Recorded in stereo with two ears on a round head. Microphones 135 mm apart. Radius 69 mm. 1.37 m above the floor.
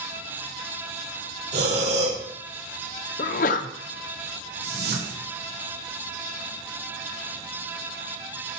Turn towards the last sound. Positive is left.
turn(degrees=-85)